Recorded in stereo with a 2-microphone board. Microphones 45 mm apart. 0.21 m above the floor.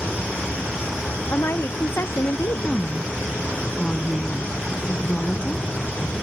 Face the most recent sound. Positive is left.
turn(degrees=20)  # may be behind; listen again after turning